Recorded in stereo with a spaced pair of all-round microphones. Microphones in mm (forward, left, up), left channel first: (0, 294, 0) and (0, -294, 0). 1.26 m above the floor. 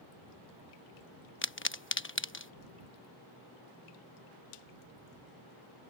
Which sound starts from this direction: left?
A pop, at 1.4 s.